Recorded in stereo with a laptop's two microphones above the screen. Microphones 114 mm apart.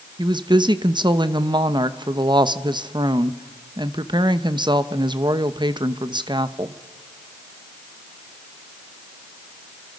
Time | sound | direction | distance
0.2 | a woman speaking | 40° right (ahead or behind) | 0.8 m